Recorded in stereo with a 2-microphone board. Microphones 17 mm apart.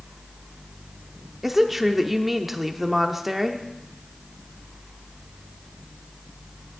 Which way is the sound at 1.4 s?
10° right (ahead or behind).